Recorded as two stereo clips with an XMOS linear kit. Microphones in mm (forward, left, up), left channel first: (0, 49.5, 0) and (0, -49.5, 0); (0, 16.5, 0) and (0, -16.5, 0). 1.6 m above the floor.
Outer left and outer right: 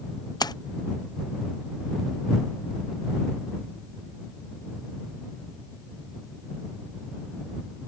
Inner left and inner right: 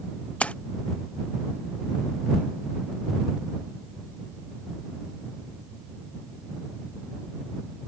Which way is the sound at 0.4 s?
40° left (ahead or behind).